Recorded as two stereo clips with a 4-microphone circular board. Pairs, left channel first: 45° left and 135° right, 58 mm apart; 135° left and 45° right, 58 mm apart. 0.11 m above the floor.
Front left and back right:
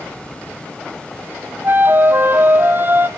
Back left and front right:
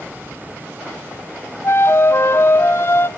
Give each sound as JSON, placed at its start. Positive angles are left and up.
{"t": 1.6, "sound": "a flute", "azimuth_deg": 175, "distance_m": 0.5}